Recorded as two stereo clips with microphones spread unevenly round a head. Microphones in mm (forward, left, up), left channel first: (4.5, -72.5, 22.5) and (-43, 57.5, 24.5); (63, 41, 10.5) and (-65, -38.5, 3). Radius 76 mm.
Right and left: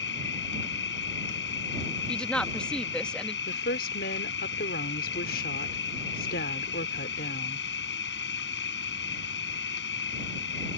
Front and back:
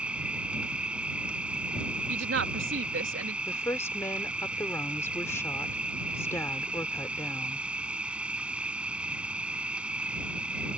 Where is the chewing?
No chewing in this recording.